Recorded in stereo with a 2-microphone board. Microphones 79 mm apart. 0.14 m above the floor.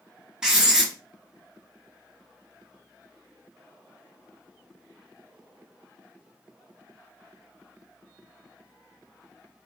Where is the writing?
10° right (ahead or behind), 1.0 m.